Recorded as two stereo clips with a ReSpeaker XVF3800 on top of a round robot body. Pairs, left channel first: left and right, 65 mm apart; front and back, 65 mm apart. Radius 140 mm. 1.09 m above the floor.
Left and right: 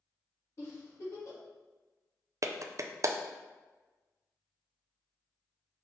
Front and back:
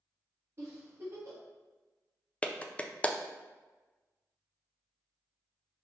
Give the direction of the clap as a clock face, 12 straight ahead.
2 o'clock.